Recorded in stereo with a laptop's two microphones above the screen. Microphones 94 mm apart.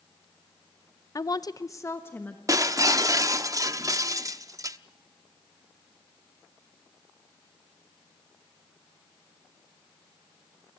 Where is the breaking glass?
35° right (ahead or behind), 0.7 m.